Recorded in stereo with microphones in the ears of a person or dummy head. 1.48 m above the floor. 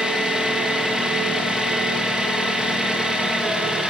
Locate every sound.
0.0 s an engine running: centre (ahead or behind), 1.1 m